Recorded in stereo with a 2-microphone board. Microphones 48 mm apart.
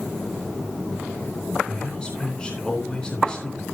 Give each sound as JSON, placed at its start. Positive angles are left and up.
{"t": 1.7, "sound": "a man speaking", "side_deg": 20, "distance_m": 3.5}